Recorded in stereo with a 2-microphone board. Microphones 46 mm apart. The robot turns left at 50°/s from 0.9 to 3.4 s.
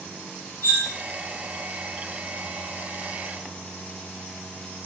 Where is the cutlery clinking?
40° left (ahead or behind), 1.1 m.